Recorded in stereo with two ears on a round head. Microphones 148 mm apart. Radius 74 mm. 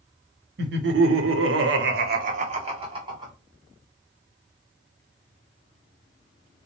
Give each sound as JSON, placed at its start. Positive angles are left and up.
{"t": 0.6, "sound": "laughter", "side_deg": -60, "distance_m": 0.8}